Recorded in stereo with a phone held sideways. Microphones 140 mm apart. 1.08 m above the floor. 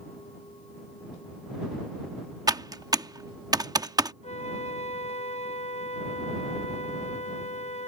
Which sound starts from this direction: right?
Typing on a keyboard, at 2.5 s.